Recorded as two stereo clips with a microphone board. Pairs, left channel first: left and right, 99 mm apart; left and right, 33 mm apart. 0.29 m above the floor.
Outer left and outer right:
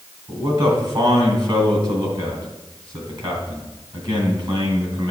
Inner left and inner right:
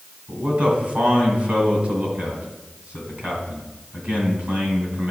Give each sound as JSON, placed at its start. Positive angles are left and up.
{"t": 0.3, "sound": "a man speaking", "side_deg": -50, "distance_m": 2.5}